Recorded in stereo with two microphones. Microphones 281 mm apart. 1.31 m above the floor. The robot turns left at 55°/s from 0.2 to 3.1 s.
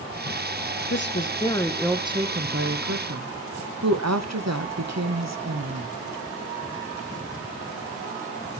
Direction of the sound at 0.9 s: 50° left.